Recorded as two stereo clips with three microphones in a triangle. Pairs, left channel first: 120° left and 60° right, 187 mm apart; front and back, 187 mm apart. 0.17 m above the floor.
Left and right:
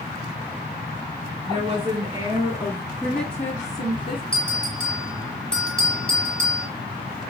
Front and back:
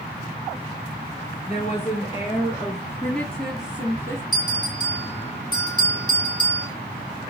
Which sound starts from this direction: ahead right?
A woman speaking, at 1.5 s.